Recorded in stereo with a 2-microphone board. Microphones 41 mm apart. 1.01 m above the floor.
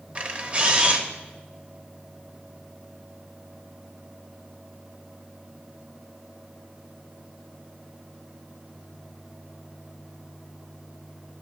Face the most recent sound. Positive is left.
turn(degrees=-30)  # may be behind; listen again after turning